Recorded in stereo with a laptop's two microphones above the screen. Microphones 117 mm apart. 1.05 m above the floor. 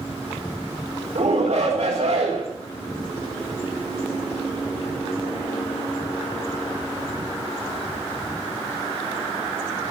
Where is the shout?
65° right (ahead or behind), 3 m.